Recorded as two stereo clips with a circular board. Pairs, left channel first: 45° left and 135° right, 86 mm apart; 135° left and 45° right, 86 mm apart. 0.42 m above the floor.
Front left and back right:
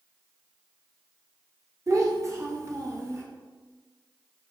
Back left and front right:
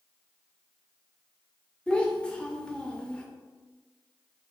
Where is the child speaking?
150° right, 0.5 m.